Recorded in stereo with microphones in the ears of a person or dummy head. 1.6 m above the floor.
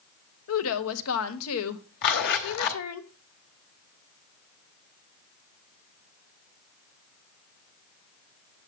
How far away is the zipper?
About 2 m.